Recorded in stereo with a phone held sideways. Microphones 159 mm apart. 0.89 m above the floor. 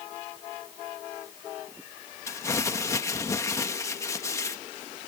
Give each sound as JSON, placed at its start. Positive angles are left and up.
{"t": 2.3, "sound": "crumpling", "side_deg": 20}